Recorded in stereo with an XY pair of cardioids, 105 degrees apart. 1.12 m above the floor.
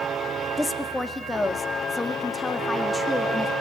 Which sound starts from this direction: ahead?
A woman speaking, at 0.6 s.